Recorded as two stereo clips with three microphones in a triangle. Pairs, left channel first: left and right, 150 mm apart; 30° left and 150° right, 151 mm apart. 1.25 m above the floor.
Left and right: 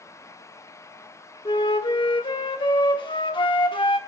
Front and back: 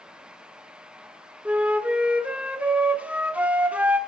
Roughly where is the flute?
Behind left.